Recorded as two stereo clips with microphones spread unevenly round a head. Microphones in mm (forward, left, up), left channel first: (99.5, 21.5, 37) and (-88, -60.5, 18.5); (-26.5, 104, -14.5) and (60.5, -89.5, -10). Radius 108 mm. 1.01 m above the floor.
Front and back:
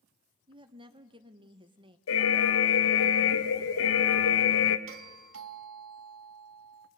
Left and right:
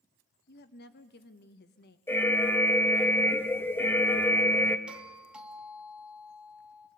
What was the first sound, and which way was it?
A woman speaking, 145° left.